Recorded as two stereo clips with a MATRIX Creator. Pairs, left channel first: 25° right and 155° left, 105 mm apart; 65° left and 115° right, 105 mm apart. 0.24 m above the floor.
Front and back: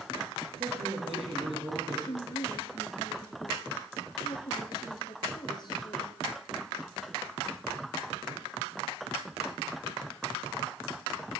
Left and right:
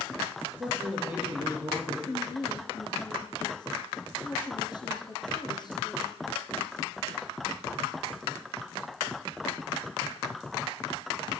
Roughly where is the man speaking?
Behind.